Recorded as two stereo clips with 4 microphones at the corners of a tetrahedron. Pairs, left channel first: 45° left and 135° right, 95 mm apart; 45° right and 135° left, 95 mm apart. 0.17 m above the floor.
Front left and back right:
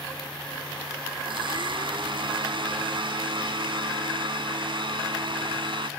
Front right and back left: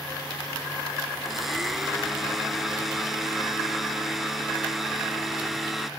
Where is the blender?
140° right, 0.5 m.